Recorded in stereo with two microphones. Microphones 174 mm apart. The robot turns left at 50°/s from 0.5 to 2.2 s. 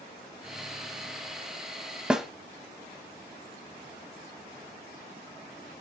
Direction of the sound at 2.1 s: 5° right (ahead or behind).